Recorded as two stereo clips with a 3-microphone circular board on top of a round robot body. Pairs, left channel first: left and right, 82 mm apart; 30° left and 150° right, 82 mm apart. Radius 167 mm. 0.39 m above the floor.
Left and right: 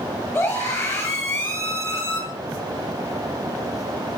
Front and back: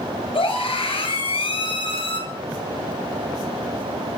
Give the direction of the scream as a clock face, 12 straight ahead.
11 o'clock.